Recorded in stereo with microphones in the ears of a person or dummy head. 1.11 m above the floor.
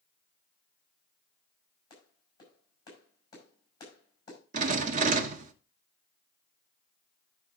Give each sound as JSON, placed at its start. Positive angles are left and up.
{"t": 1.9, "sound": "a clap", "side_deg": 25, "distance_m": 6.0}
{"t": 4.5, "sound": "a rattle", "side_deg": -50, "distance_m": 1.1}